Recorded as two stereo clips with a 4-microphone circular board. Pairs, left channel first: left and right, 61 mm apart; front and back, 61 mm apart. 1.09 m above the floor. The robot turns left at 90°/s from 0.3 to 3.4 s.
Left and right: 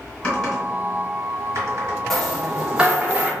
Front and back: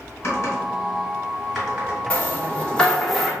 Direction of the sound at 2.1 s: 15° left.